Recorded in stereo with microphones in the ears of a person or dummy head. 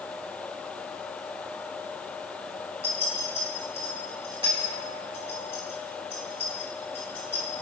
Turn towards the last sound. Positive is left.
turn(degrees=-25)  # may be behind; listen again after turning